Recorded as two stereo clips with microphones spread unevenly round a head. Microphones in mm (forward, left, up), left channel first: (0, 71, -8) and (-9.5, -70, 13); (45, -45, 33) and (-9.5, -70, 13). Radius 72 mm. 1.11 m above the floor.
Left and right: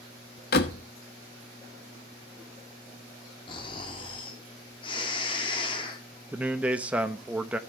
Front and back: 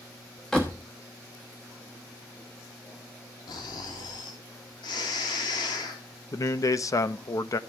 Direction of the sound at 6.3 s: 10° right.